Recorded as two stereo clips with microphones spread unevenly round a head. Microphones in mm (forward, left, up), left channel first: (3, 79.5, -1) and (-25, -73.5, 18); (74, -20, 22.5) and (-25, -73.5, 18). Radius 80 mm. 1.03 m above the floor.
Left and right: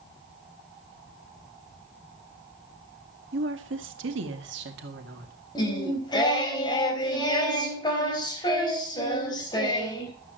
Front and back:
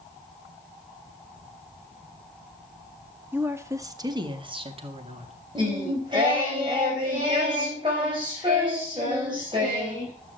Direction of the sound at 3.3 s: 80° right.